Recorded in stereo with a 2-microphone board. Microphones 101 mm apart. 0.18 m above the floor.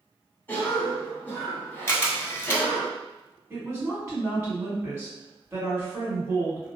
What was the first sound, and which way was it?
A cough, 20° left (ahead or behind).